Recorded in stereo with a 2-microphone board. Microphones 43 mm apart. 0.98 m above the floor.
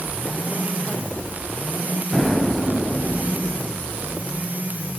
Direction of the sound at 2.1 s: Centre (ahead or behind).